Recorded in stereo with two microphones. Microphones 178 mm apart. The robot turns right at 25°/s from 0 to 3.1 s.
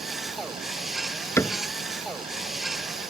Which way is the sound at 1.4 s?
15° left (ahead or behind).